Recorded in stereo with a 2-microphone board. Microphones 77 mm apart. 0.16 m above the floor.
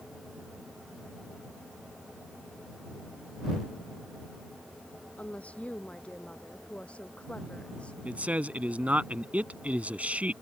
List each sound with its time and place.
5.2 s a woman speaking: 15° left (ahead or behind)
8.1 s a man speaking: 20° right (ahead or behind)